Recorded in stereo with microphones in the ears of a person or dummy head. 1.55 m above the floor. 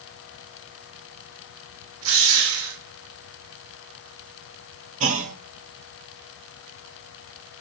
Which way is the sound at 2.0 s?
75° right (ahead or behind).